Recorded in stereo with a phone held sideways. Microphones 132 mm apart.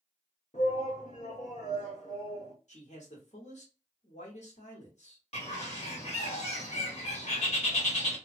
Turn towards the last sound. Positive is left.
turn(degrees=55)  # may be behind; listen again after turning